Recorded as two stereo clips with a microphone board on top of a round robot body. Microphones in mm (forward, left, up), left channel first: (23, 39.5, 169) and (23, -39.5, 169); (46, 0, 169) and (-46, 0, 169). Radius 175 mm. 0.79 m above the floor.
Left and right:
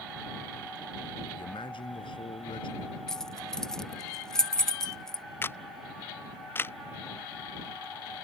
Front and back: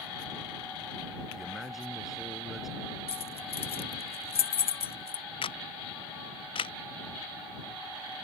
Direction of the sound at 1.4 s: 90° left.